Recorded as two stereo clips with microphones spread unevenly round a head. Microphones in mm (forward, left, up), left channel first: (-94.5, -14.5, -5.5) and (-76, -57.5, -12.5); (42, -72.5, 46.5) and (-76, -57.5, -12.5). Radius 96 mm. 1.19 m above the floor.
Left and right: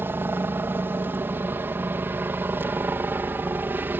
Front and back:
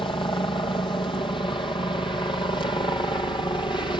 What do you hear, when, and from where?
0.0 s a helicopter: 70° right